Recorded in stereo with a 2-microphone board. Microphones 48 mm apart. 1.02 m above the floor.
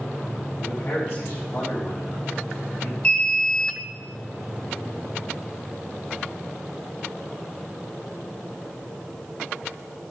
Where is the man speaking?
50° left (ahead or behind), 4.5 m.